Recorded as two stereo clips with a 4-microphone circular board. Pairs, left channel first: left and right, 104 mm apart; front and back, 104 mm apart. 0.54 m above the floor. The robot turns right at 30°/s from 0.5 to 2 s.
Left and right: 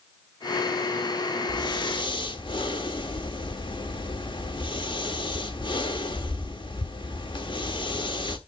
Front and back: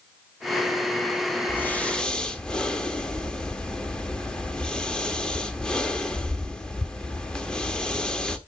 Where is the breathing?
65° left, 1.3 m; by 8.4 s 80° left, 1.3 m.